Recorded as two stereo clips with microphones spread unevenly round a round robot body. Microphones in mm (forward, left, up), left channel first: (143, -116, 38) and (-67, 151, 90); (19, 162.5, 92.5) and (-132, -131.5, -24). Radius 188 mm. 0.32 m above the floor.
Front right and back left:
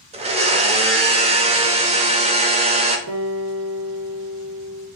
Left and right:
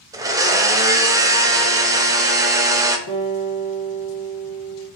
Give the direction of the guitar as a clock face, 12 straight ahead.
10 o'clock.